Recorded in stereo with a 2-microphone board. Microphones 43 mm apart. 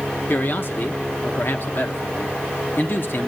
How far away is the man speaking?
About 1.4 m.